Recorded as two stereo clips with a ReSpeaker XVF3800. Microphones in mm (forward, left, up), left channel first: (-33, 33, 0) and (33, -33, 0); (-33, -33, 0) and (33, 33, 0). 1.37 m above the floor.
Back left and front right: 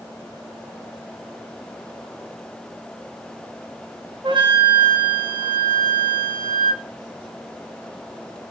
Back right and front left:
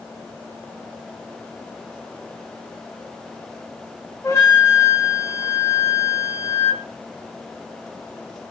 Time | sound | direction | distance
4.2 | a flute | 75° right | 3 m